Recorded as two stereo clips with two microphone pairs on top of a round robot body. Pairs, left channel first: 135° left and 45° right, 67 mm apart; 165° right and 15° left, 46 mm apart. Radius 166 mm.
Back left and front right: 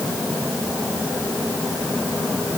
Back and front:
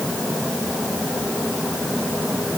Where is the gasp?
No gasp in this recording.